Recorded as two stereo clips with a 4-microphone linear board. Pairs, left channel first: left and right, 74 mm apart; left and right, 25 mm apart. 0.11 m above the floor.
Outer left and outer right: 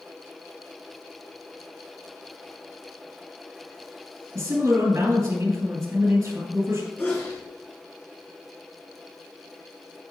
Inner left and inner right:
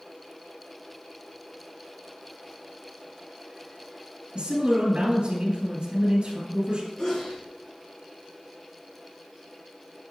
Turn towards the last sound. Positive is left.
turn(degrees=25)  # may be behind; listen again after turning